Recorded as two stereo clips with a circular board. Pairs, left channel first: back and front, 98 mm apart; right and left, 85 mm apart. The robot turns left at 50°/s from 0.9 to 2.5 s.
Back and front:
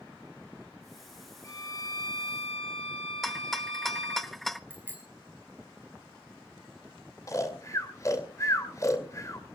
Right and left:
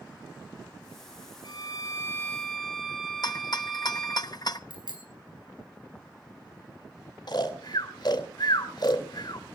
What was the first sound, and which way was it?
A violin, 120° right.